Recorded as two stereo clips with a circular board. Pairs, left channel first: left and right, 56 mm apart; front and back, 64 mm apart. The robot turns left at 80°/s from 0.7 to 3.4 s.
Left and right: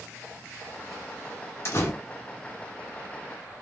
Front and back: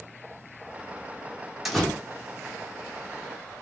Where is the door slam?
95° left, 1.4 m; by 1.9 s 75° left, 1.4 m.